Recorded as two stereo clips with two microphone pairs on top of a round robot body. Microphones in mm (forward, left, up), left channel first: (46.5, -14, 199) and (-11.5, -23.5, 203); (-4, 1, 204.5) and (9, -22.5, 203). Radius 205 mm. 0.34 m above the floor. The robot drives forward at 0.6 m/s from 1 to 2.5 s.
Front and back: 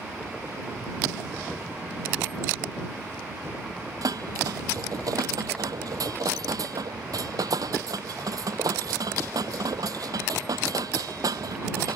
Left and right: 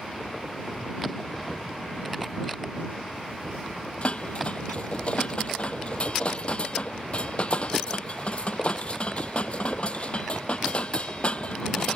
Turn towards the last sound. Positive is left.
turn(degrees=170)